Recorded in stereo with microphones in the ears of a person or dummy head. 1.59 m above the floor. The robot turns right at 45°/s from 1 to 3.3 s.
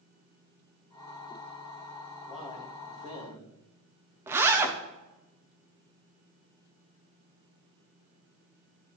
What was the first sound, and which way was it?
A man speaking, 175° right.